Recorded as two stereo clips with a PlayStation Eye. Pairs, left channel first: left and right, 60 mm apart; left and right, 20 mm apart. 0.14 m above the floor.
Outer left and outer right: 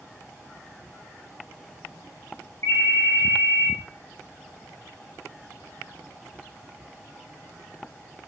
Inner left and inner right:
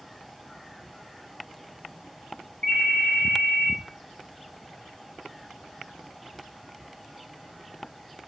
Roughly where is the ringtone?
Left.